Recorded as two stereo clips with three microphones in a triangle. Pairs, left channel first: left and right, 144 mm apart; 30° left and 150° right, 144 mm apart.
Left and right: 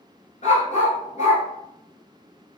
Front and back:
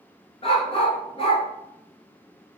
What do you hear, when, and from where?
0.4 s a dog barking: 70° left, 0.8 m